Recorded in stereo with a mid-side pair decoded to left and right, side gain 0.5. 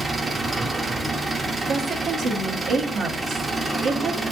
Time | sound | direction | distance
0.0 | an engine running | 25° right | 0.8 m
1.7 | a woman speaking | 60° right | 1.1 m